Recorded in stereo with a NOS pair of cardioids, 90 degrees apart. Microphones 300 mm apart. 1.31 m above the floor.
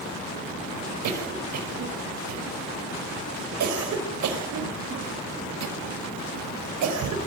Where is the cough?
70° right, 5.5 m.